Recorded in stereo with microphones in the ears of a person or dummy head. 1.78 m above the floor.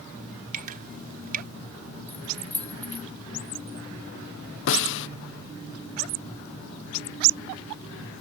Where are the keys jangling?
5° left (ahead or behind).